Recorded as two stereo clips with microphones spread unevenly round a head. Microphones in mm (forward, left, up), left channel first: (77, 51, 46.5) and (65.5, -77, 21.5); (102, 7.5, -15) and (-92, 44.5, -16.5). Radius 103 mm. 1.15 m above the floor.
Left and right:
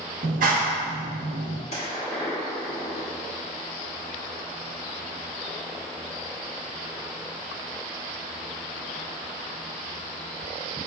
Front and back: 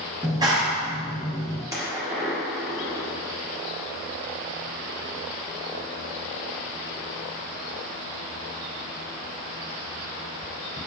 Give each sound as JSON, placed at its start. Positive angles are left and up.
{"t": 0.2, "sound": "a clap", "azimuth_deg": -120, "distance_m": 0.5}
{"t": 1.7, "sound": "a gunshot", "azimuth_deg": 95, "distance_m": 1.0}